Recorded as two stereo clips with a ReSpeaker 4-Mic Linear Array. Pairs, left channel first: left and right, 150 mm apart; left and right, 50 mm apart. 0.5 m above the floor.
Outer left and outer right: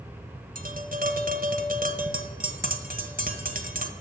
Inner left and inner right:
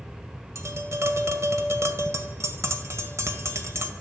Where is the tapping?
65° right (ahead or behind), 1.6 m.